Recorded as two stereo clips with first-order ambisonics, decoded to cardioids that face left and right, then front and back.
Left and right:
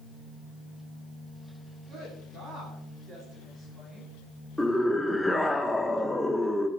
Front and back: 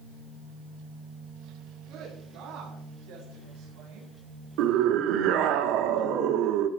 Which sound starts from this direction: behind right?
A woman speaking, at 1.9 s.